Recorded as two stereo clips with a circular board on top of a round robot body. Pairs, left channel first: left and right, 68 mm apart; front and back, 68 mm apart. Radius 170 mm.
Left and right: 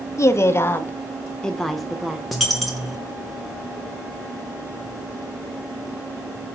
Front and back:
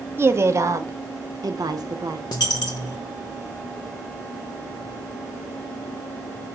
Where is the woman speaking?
130° left, 1.2 m; by 2.2 s 170° right, 1.2 m.